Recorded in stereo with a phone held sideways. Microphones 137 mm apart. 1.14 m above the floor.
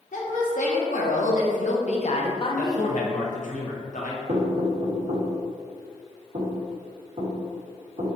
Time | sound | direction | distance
0.1 | a woman speaking | 65° left (ahead or behind) | 1.4 m
2.6 | a man speaking | 65° left (ahead or behind) | 1.0 m
4.3 | knocking | 55° right (ahead or behind) | 1.7 m